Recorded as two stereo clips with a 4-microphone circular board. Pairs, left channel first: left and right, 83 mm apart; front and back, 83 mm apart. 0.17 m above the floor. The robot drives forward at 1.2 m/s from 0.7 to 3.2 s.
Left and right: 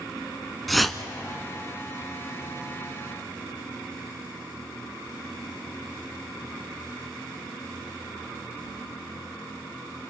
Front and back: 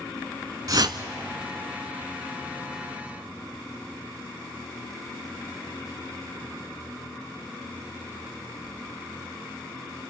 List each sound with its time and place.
0.7 s a whoosh: straight behind, 0.6 m